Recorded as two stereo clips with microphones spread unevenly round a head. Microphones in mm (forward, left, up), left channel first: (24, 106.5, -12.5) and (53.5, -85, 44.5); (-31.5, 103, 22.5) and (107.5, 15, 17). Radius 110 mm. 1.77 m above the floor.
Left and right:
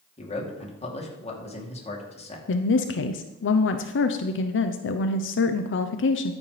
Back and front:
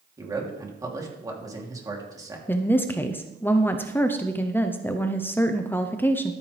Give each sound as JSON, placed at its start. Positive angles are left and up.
{"t": 0.2, "sound": "a man speaking", "azimuth_deg": 35, "distance_m": 3.0}
{"t": 2.5, "sound": "a woman speaking", "azimuth_deg": 70, "distance_m": 0.8}